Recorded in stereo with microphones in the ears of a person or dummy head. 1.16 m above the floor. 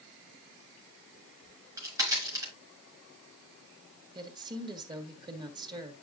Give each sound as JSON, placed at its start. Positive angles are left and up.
{"t": 1.4, "sound": "a crack", "side_deg": -20, "distance_m": 4.0}
{"t": 4.2, "sound": "a woman speaking", "side_deg": -25, "distance_m": 1.9}